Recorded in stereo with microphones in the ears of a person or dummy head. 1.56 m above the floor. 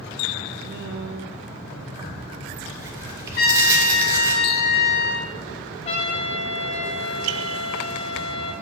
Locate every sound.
0.6 s a woman speaking: 60° right (ahead or behind), 1.1 m
2.0 s tearing paper: 20° right (ahead or behind), 1.7 m
3.4 s a trumpet: 40° left (ahead or behind), 1.2 m
5.8 s a trumpet: 35° left (ahead or behind), 1.1 m